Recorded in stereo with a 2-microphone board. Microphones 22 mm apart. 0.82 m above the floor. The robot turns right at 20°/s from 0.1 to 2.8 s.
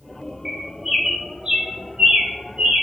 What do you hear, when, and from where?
0.5 s a bird: 15° right (ahead or behind), 1.8 m; by 2.8 s 60° right (ahead or behind), 1.8 m